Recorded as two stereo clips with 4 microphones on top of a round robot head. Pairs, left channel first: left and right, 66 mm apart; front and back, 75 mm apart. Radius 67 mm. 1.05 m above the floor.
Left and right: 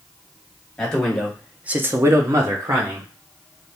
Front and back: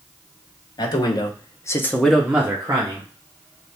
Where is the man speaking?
10° left, 1.4 m; by 3.1 s 130° right, 1.5 m.